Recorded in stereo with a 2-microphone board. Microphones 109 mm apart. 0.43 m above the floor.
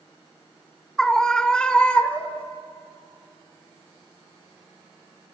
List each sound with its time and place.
1.0 s a scream: 5° left (ahead or behind), 1.8 m; by 2.5 s 15° left (ahead or behind), 1.4 m